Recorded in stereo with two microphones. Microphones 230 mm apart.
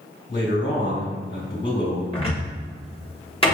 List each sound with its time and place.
0.3 s a man speaking: 50° left (ahead or behind), 1.6 m
2.1 s a cupboard door: 25° left (ahead or behind), 1.1 m